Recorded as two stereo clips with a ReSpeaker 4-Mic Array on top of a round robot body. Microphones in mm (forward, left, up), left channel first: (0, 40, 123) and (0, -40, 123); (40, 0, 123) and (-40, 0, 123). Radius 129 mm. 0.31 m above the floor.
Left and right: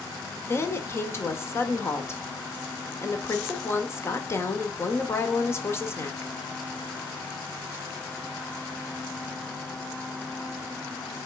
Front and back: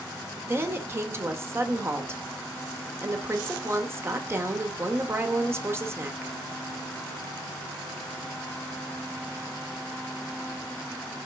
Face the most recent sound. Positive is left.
turn(degrees=135)